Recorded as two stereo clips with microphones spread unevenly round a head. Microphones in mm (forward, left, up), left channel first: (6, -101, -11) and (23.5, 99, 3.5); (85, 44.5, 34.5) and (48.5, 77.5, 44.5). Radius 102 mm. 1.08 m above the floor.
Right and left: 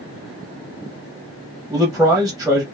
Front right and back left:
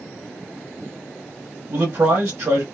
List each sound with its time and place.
1.7 s a man speaking: 175° left, 0.8 m